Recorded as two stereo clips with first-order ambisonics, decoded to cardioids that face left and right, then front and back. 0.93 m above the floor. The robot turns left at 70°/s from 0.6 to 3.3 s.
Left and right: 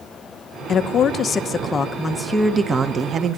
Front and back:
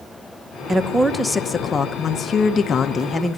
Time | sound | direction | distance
0.7 | a woman speaking | 110° left | 0.7 m